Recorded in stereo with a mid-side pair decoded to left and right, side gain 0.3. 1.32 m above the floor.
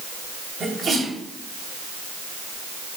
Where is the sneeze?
60° right, 8.5 m.